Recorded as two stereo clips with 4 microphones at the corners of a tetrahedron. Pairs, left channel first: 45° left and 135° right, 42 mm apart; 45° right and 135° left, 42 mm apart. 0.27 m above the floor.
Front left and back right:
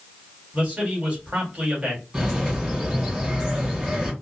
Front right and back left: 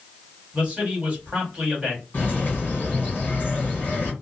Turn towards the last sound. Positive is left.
turn(degrees=-70)